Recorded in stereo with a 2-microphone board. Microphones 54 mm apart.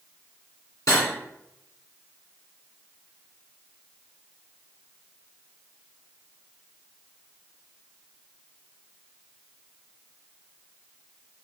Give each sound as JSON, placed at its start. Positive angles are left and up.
{"t": 0.9, "sound": "cutlery clinking", "side_deg": 75, "distance_m": 2.0}